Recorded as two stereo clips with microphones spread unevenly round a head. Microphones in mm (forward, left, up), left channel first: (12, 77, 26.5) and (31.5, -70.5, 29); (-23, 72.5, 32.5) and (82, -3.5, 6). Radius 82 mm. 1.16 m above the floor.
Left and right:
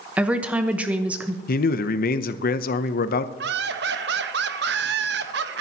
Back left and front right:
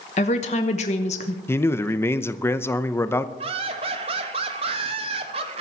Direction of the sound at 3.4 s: 90° right.